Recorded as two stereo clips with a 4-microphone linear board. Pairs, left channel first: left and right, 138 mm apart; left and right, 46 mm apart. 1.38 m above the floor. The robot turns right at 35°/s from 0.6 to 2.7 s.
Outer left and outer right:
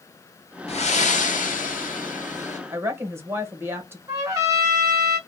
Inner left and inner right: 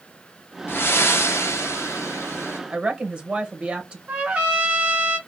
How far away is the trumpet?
About 1.3 m.